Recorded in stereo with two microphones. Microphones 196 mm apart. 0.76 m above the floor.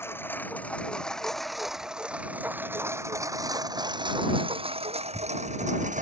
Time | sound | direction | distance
0.0 | a lawn mower | 10° left (ahead or behind) | ?